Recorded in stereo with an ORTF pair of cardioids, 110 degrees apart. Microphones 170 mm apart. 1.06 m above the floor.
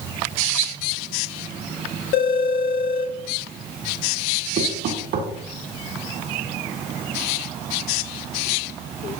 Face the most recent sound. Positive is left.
turn(degrees=-70)